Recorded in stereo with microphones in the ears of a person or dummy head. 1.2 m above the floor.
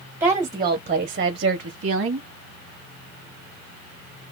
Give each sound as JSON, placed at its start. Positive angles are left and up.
{"t": 0.2, "sound": "a woman speaking", "side_deg": -10, "distance_m": 1.2}